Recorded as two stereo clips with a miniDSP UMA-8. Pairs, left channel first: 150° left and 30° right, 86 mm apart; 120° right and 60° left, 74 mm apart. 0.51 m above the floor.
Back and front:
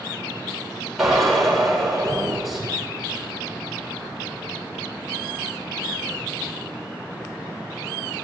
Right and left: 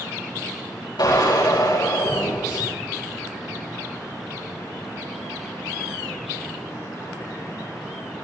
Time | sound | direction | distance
1.0 | a drill | 115° right | 8.5 m